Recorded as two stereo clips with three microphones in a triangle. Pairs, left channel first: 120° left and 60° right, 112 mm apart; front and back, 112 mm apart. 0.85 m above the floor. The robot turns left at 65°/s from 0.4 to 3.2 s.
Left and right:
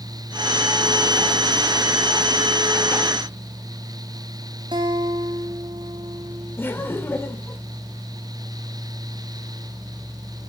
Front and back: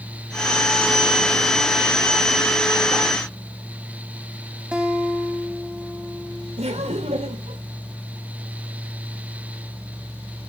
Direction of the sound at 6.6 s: 170° right.